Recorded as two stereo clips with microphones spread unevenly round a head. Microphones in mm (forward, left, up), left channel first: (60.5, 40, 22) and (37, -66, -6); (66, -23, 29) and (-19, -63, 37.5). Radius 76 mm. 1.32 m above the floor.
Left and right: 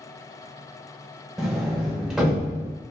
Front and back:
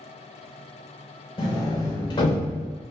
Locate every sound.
1.4 s a sliding door: 5° right, 0.6 m